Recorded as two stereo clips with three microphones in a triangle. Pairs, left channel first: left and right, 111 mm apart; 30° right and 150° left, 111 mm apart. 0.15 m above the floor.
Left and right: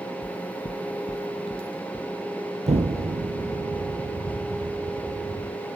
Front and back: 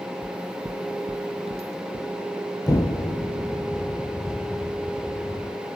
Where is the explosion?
85° right, 1.5 m.